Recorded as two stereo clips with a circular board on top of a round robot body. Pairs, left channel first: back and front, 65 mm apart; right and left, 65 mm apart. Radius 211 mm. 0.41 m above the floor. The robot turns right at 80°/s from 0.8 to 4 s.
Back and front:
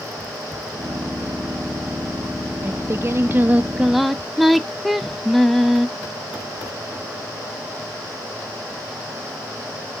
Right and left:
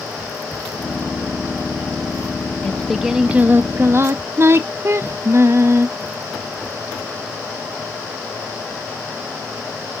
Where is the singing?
20° right, 0.6 m; by 5.9 s 90° left, 0.6 m.